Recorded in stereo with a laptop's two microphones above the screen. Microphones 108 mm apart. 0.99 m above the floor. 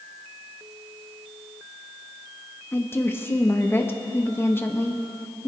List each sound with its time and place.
2.7 s a woman speaking: 25° left (ahead or behind), 1.3 m